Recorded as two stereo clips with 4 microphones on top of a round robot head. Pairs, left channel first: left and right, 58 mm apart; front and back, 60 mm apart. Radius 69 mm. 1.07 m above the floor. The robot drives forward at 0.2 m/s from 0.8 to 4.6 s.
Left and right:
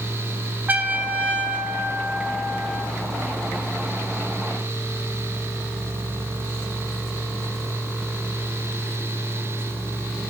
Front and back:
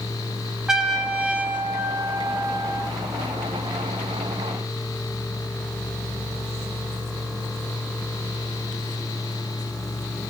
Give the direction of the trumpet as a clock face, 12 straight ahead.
4 o'clock.